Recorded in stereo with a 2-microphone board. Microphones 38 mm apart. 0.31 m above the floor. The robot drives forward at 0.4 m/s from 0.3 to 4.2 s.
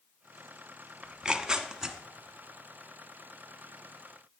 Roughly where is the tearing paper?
Right.